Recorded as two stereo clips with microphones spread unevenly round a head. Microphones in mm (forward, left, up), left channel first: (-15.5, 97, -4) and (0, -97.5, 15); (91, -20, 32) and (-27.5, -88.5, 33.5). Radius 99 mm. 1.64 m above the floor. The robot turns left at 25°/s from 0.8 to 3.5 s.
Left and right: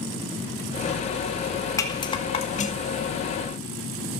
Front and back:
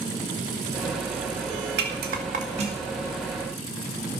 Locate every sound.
1.8 s a rattle: 170° left, 2 m; by 3.0 s 140° left, 2 m